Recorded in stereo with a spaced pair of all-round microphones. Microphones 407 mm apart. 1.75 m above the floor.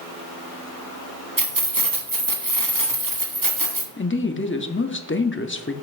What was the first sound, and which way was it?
Keys jangling, 50° right (ahead or behind).